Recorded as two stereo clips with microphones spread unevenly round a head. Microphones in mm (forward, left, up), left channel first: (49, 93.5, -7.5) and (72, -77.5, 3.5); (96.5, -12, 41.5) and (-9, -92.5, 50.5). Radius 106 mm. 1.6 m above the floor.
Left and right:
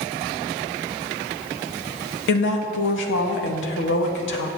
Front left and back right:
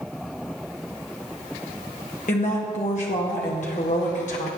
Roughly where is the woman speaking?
Left.